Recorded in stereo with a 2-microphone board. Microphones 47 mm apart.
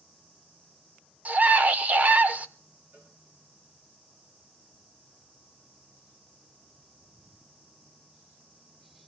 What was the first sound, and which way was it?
A scream, 30° right (ahead or behind).